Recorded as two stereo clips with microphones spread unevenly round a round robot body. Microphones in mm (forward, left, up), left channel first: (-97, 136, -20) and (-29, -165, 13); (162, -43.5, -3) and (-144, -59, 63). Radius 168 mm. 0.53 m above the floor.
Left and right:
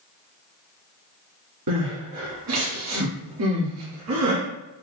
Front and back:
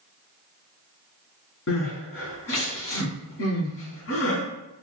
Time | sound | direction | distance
1.7 | crying | 50° right | 1.6 m